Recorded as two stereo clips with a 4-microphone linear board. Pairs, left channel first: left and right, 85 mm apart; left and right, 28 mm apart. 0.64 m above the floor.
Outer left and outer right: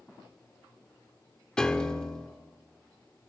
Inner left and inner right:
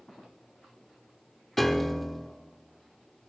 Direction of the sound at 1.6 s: 10° left (ahead or behind).